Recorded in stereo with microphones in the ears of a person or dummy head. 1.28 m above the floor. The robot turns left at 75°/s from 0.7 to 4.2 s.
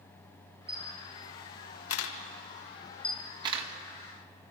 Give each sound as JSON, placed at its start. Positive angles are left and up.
{"t": 0.7, "sound": "a camera shutter", "side_deg": -5, "distance_m": 1.8}